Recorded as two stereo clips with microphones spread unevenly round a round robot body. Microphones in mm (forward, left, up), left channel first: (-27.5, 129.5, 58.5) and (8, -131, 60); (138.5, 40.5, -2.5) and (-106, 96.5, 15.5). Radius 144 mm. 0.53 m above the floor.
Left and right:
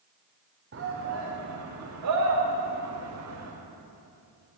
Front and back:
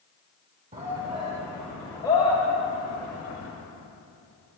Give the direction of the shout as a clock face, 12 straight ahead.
4 o'clock.